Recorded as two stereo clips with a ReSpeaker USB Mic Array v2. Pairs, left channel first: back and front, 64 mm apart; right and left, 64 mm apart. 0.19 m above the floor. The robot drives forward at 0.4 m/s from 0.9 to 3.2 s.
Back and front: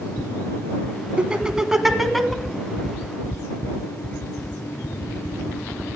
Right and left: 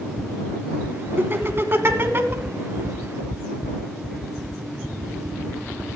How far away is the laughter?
About 1.3 m.